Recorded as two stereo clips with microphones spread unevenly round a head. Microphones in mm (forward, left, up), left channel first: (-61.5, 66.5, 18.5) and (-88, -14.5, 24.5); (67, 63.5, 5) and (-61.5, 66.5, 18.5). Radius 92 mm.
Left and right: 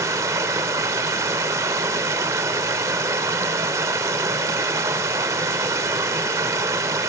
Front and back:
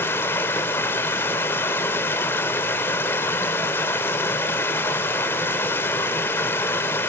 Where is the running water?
75° right, 0.8 m.